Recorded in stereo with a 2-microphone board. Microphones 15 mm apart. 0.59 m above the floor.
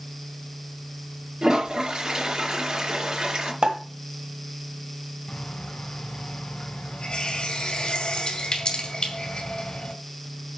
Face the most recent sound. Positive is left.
turn(degrees=70)  # may be behind; listen again after turning